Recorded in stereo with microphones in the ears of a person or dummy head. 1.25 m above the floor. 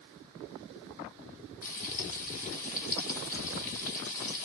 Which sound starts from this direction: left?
Frying, at 1.6 s.